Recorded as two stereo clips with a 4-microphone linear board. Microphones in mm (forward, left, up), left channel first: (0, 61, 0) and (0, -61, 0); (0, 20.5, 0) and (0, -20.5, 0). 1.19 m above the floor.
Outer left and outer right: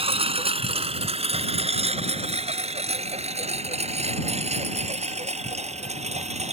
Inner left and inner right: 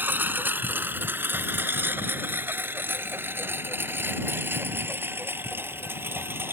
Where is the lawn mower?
50° right (ahead or behind); by 6.5 s 65° right (ahead or behind).